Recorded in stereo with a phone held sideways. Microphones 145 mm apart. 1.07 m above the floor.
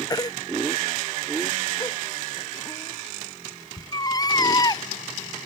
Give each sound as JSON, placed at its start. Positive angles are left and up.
{"t": 0.1, "sound": "a baby crying", "side_deg": 25}